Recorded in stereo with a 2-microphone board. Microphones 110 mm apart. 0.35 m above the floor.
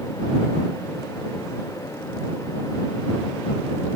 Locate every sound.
Only background noise.